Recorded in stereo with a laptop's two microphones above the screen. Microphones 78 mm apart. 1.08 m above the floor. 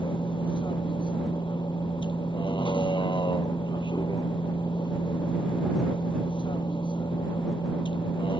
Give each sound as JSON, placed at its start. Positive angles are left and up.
{"t": 0.0, "sound": "a vehicle", "side_deg": 85}